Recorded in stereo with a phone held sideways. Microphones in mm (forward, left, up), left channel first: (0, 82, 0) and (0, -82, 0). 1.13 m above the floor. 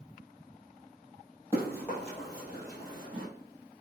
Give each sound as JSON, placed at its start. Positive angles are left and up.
{"t": 1.5, "sound": "running footsteps", "side_deg": 20, "distance_m": 1.5}